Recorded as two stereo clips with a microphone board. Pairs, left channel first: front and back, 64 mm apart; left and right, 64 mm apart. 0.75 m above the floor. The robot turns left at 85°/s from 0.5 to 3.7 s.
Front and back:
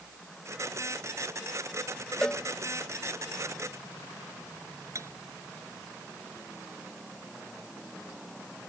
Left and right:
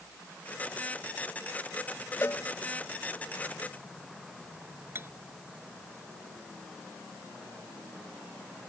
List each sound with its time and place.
2.2 s a cowbell: 75° left; by 2.4 s 55° left
5.0 s cutlery clinking: 140° right